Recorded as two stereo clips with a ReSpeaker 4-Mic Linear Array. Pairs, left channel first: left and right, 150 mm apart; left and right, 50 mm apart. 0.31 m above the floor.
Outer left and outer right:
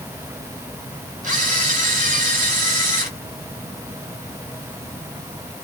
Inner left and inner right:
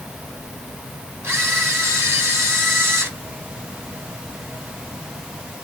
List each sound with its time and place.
1.2 s a camera shutter: 55° right (ahead or behind), 2.5 m